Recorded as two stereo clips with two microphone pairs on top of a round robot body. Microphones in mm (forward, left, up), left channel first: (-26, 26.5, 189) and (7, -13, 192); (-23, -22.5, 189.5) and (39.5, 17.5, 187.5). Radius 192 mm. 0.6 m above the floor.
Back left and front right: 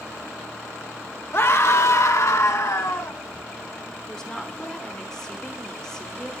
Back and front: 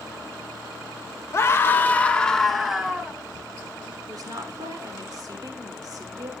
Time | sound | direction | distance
1.3 | a scream | 160° left | 1.6 m
4.1 | a woman speaking | 55° left | 2.5 m